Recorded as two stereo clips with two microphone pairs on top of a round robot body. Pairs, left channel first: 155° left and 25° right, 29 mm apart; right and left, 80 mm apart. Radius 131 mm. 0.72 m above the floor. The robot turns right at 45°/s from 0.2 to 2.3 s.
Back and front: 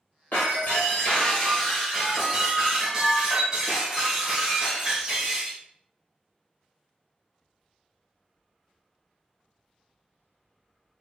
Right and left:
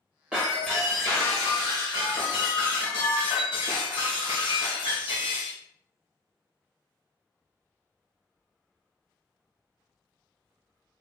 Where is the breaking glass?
170° left, 0.9 m; by 5.6 s 100° right, 0.9 m.